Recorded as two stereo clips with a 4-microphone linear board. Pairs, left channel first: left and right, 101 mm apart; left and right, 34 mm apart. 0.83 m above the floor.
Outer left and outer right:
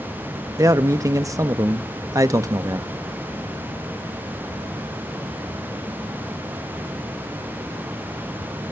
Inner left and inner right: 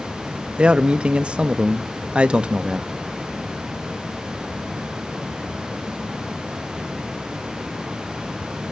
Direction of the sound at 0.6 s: 30° right (ahead or behind).